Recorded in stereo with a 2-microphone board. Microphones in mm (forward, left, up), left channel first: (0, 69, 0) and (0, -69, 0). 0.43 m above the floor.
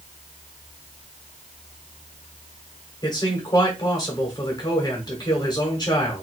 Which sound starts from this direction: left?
A man speaking, at 3.0 s.